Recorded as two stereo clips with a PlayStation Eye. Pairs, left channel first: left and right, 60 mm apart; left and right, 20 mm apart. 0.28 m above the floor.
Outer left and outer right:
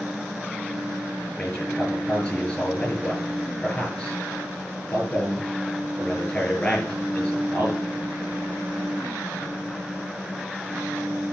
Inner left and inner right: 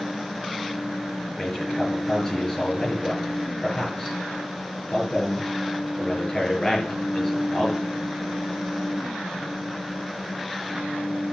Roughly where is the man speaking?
Centre.